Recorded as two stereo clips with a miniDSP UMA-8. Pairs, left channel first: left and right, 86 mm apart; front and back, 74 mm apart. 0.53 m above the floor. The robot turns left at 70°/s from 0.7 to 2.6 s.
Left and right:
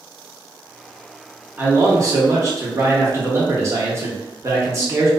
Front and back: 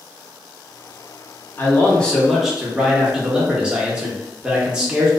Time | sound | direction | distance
1.6 | a man speaking | 35° right | 0.8 m